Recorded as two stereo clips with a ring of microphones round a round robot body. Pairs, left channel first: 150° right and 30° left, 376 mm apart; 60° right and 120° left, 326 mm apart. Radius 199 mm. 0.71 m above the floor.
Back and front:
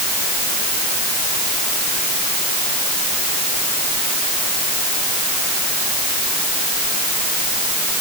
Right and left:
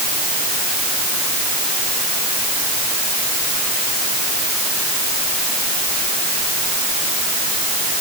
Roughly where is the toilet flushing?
No toilet flushing in this recording.